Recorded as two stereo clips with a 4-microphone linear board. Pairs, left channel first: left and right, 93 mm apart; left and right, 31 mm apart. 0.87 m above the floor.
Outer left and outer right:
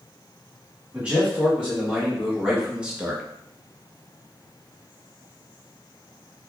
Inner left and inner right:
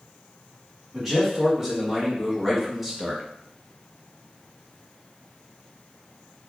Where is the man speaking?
10° right (ahead or behind), 1.8 m.